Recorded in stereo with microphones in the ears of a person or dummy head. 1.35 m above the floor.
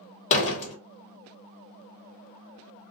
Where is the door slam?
40° left (ahead or behind), 0.8 m.